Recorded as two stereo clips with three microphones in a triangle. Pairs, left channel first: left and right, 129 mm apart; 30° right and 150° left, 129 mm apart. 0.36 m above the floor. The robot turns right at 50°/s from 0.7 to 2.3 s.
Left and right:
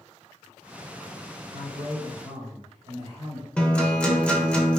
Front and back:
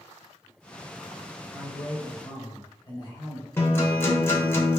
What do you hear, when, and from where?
1.5 s a man speaking: 120° right, 1.3 m; by 3.5 s 80° right, 1.3 m
3.6 s a guitar: 15° left, 0.7 m